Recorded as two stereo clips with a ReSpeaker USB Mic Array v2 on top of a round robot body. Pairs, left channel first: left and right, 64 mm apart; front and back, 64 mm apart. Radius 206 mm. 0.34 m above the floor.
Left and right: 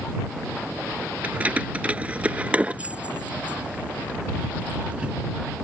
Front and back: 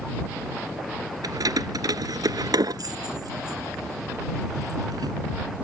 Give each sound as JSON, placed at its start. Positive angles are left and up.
{"t": 1.2, "sound": "keys jangling", "azimuth_deg": -160}